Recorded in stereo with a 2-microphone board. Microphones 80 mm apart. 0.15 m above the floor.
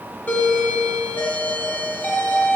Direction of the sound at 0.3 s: 20° left (ahead or behind).